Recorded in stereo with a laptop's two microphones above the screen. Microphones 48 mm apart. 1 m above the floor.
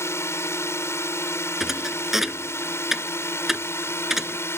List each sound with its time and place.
0.0 s a drone: 65° left (ahead or behind); by 4.6 s 60° left (ahead or behind)
1.6 s a thud: 5° right (ahead or behind)